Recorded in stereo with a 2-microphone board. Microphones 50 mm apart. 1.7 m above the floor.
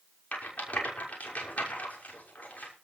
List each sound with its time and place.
0.3 s a rattle: 30° left (ahead or behind), 6 m